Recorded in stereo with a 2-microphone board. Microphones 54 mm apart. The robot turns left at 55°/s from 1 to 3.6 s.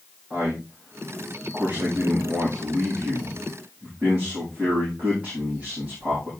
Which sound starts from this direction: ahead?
A man speaking, at 0.3 s.